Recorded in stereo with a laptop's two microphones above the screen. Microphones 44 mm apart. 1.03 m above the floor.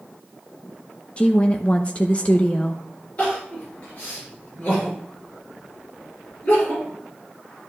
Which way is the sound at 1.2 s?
25° left (ahead or behind).